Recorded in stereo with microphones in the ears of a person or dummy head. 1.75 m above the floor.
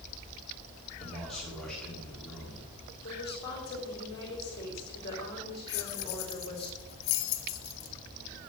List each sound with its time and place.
1.0 s a man speaking: centre (ahead or behind), 4 m
3.0 s a woman speaking: 25° left (ahead or behind), 4 m
5.7 s keys jangling: 55° left (ahead or behind), 1.2 m